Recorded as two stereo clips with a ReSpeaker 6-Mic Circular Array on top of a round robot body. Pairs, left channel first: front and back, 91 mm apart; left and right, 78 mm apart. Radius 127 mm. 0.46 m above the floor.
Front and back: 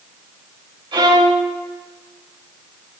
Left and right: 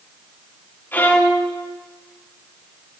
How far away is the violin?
About 3 m.